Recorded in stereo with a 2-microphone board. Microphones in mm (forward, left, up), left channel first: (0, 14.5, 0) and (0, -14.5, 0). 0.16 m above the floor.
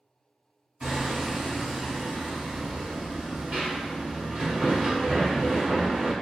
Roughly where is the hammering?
Right.